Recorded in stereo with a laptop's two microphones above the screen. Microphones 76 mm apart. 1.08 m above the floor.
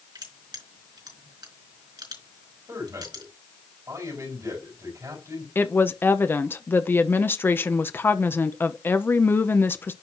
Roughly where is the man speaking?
Right.